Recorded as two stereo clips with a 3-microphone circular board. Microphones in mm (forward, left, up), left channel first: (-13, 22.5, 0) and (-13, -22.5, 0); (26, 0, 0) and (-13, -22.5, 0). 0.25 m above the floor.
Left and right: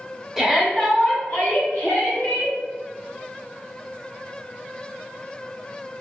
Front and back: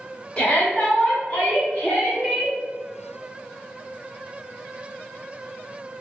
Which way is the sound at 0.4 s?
20° right.